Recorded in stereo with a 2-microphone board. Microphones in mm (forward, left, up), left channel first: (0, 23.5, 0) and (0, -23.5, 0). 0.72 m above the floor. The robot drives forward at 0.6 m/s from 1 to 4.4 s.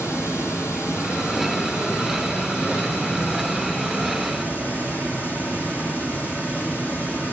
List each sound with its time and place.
0.0 s running water: 75° left (ahead or behind), 2.5 m; by 7.3 s 45° left (ahead or behind), 3.5 m